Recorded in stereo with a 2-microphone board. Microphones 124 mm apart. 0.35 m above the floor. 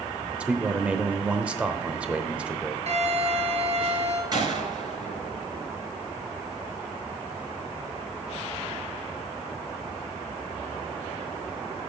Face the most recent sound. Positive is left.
turn(degrees=-35)  # may be behind; listen again after turning